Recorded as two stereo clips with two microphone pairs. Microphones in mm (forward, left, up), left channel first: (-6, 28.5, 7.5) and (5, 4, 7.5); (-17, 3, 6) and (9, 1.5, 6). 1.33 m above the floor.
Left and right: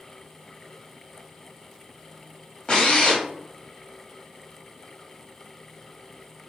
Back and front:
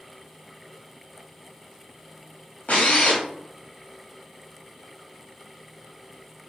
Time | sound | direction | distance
2.7 | a drill | 170° left | 1.3 m